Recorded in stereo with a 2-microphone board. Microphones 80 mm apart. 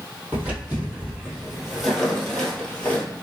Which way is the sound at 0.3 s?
20° right (ahead or behind).